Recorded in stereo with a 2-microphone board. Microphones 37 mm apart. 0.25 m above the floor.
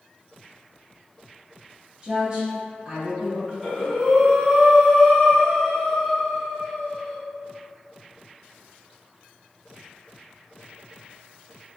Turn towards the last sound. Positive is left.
turn(degrees=0)  # may be behind; listen again after turning